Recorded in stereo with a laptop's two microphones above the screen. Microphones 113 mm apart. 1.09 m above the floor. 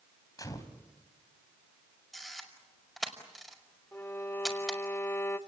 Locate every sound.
0.4 s a gunshot: 35° left (ahead or behind), 3 m
2.1 s a camera shutter: centre (ahead or behind), 5.5 m
3.9 s a violin: 20° left (ahead or behind), 1.3 m